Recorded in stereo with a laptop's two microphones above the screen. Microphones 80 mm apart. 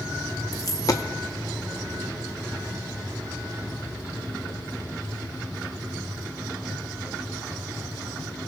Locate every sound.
0.5 s a dropped coin: 45° left (ahead or behind), 0.5 m